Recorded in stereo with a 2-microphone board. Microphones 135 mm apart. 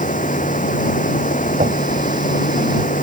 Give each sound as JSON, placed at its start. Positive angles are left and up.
{"t": 0.0, "sound": "running water", "side_deg": 75}
{"t": 1.6, "sound": "knocking", "side_deg": -75}